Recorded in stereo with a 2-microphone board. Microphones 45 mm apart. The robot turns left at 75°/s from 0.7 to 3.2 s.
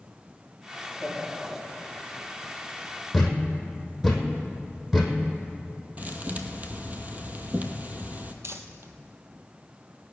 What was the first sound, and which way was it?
Laughter, 145° left.